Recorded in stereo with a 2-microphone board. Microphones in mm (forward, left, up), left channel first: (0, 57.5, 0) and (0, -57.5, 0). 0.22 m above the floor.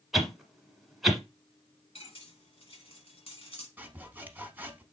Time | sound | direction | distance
0.1 | a whoosh | centre (ahead or behind) | 1.1 m
1.9 | cutlery clinking | 55° left (ahead or behind) | 1.3 m
3.8 | sawing | 15° right (ahead or behind) | 0.7 m